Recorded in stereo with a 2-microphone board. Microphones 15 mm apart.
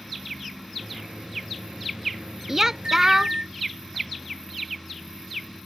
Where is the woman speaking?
30° right (ahead or behind).